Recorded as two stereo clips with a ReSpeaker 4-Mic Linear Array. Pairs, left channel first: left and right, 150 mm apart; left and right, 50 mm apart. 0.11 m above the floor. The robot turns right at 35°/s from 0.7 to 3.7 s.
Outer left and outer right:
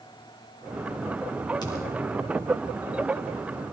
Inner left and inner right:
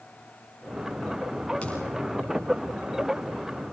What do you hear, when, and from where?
1.6 s a thud: 25° left (ahead or behind), 7.5 m; by 2.1 s 10° left (ahead or behind), 7.5 m